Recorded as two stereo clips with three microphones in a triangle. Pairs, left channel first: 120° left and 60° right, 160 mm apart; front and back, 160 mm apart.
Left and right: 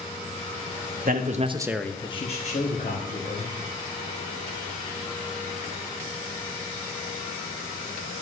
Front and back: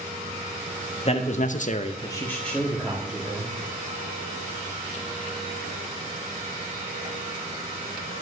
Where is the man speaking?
45° right, 1.2 m; by 3.5 s 95° left, 3 m.